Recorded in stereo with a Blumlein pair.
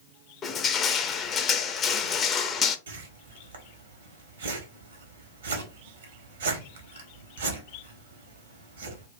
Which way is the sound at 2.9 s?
65° right.